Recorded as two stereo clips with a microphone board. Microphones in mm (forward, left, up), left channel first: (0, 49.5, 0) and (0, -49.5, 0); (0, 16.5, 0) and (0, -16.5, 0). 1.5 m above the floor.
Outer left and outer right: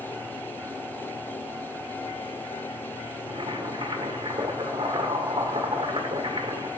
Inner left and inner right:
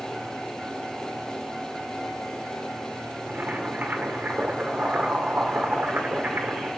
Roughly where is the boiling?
Right.